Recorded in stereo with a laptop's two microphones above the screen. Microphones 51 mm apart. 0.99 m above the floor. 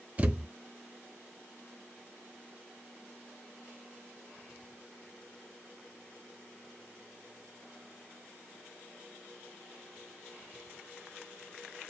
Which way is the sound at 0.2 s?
30° right (ahead or behind).